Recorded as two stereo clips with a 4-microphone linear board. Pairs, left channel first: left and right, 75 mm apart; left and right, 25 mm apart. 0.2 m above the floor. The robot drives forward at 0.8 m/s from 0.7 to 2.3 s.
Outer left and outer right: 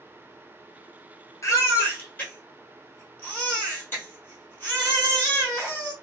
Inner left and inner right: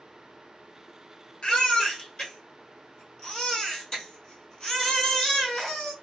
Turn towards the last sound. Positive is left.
turn(degrees=25)  # may be behind; listen again after turning